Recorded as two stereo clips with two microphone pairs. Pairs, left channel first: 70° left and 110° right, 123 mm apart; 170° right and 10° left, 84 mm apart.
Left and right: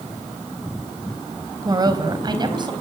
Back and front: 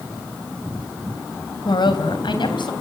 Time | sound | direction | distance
1.6 | a woman speaking | 165° right | 3 m